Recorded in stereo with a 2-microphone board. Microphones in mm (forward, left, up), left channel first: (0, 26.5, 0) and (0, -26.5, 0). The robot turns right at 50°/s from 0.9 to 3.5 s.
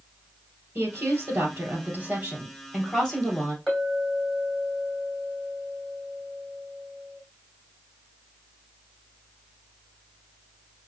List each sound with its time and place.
0.8 s a woman speaking: 115° right, 2.5 m; by 3.6 s 15° left, 2.5 m
3.7 s a clink: 5° left (ahead or behind), 3 m